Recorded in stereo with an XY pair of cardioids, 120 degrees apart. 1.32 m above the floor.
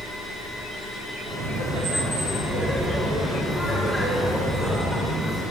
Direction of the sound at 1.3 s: 65° right.